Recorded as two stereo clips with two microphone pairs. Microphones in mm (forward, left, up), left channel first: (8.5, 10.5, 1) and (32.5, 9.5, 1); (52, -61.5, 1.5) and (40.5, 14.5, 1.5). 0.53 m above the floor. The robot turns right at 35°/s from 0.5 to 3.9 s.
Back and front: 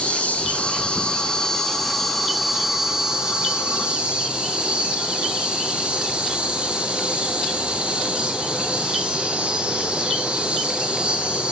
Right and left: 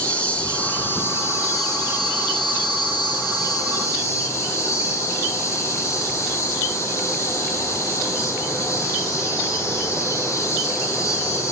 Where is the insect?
155° right, 5 m; by 11.5 s 40° right, 5 m.